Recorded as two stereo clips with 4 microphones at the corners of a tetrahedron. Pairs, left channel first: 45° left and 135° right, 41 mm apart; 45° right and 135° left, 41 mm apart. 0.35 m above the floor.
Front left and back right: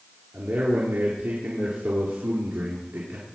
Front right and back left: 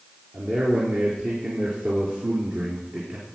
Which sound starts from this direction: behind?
A man speaking, at 0.3 s.